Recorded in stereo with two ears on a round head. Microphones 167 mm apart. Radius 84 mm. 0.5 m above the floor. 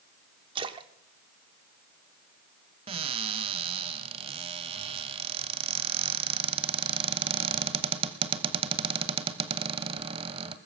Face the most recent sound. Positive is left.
turn(degrees=-30)  # may be behind; listen again after turning